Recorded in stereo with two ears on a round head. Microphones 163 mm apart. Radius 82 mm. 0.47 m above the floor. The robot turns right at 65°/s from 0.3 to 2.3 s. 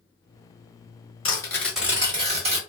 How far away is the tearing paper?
About 1.1 m.